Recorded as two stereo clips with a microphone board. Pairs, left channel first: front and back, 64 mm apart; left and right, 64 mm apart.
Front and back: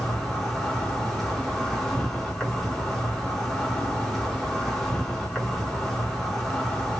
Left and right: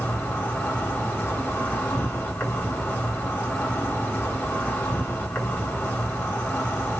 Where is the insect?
85° left, 1.4 m.